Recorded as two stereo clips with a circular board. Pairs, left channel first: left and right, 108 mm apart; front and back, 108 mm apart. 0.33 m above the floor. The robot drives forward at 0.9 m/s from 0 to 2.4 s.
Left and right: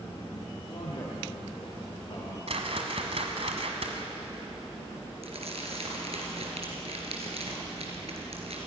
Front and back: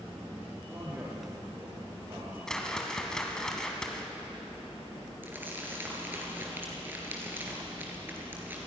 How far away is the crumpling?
About 3.5 m.